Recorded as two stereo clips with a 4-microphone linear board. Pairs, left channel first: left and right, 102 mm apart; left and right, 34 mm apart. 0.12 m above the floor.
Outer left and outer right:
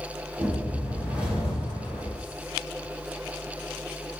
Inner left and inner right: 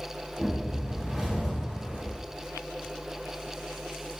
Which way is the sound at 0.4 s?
10° right (ahead or behind).